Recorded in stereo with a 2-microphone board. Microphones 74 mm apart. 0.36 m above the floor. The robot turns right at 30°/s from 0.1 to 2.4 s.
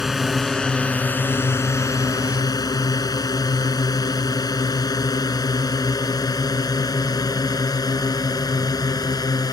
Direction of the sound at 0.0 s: 5° right (ahead or behind).